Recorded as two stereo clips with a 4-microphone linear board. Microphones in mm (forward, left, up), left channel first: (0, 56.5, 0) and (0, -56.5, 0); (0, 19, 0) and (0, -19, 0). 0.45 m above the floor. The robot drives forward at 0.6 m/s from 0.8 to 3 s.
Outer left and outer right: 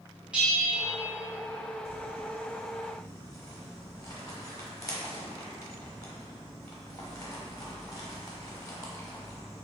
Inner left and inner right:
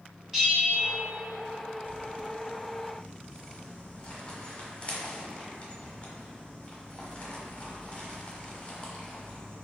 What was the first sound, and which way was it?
A bell, 10° right (ahead or behind).